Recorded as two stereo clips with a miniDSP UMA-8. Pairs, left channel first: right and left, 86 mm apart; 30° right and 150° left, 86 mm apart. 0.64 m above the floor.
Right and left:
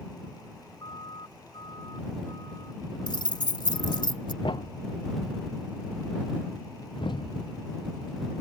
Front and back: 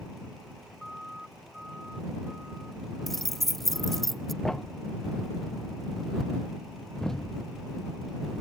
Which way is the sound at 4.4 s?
115° right.